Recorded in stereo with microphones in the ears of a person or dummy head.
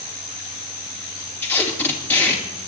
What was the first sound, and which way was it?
Tape being pulled, 10° left (ahead or behind).